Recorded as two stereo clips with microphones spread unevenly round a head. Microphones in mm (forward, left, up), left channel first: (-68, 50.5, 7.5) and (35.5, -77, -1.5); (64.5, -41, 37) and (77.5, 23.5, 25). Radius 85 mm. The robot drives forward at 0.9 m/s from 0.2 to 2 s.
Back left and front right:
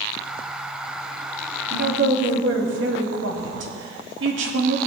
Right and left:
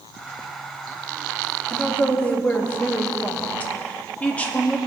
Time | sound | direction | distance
1.7 | a woman speaking | 25° right | 1.9 m